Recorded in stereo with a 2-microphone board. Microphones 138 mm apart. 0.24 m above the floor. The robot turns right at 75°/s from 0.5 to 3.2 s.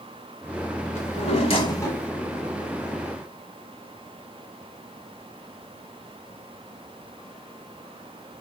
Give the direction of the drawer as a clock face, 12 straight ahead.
9 o'clock.